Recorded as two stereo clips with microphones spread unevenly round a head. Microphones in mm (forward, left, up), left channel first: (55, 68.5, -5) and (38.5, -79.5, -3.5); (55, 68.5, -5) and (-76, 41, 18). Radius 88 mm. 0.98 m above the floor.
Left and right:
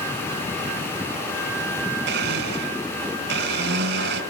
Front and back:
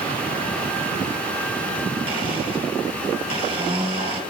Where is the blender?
105° right, 2.5 m.